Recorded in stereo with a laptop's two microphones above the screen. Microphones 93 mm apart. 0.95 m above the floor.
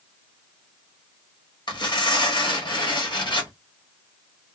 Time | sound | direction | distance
1.7 | tearing paper | 60° left (ahead or behind) | 1.3 m